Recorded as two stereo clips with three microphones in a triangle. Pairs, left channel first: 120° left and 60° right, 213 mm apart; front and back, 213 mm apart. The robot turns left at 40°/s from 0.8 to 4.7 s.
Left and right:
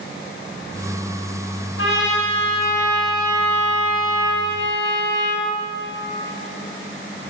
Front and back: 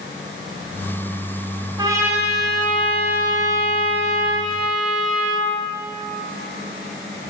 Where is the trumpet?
110° left, 2.5 m; by 5.5 s 5° right, 2.5 m.